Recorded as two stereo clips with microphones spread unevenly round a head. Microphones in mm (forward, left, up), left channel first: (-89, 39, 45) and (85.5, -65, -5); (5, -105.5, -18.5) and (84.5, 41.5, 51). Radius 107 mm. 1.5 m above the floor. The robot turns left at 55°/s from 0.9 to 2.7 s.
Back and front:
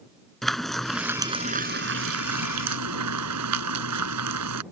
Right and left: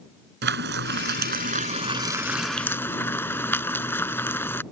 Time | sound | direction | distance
0.4 | frying | 65° left | ?